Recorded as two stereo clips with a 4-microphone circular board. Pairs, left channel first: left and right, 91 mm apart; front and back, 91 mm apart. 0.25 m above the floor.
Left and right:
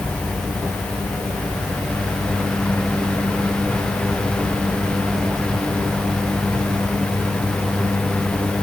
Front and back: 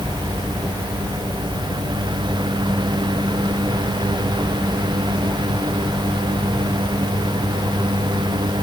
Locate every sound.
Only background noise.